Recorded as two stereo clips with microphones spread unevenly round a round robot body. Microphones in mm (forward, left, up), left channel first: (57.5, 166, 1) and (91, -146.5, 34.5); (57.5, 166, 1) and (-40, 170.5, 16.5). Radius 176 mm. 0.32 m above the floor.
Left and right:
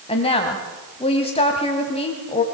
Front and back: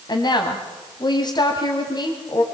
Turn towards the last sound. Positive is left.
turn(degrees=30)